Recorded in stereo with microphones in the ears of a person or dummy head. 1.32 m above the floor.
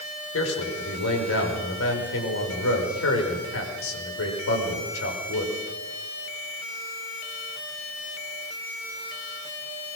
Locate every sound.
0.3 s a man speaking: 80° left, 5.5 m